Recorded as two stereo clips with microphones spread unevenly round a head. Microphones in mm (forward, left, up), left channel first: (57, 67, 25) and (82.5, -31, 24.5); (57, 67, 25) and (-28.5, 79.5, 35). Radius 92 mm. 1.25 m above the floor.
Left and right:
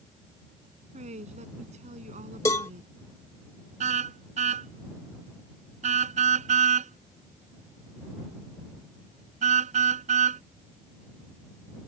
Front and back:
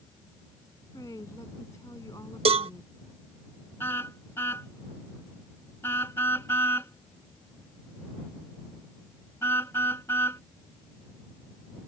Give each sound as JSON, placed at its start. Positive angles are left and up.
{"t": 0.9, "sound": "a woman speaking", "azimuth_deg": -80}
{"t": 2.5, "sound": "a cowbell", "azimuth_deg": 180}
{"t": 3.8, "sound": "a car horn", "azimuth_deg": -90}